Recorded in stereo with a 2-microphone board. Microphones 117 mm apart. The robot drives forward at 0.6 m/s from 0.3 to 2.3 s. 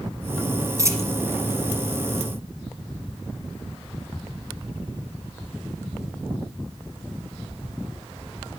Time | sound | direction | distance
0.8 | a dropped coin | 25° right (ahead or behind) | 1.5 m